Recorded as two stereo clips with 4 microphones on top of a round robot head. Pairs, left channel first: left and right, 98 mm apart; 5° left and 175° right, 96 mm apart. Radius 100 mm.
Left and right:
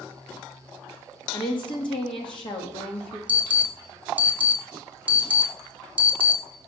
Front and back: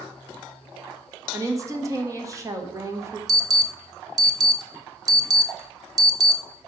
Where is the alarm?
155° right, 1.1 m.